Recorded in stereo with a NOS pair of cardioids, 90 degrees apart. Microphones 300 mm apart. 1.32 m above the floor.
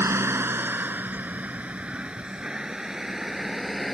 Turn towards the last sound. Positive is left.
turn(degrees=0)